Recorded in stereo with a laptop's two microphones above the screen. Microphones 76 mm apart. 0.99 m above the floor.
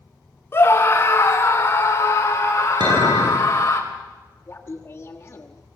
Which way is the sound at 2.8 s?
70° right (ahead or behind).